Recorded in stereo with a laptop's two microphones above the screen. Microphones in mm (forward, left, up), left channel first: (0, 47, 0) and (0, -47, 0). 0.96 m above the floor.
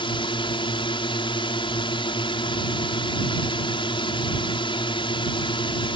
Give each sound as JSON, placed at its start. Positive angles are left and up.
{"t": 0.0, "sound": "a drone", "side_deg": 65}